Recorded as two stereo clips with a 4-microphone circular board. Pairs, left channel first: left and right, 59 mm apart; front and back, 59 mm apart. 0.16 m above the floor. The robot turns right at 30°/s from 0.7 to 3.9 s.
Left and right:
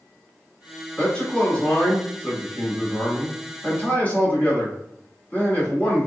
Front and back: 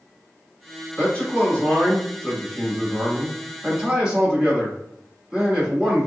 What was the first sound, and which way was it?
A man speaking, 30° left.